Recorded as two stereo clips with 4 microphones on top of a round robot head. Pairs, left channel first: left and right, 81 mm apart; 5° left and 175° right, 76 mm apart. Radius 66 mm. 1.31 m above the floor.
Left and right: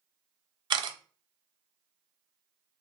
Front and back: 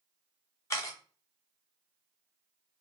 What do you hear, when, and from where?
0.7 s a camera shutter: 60° right, 0.8 m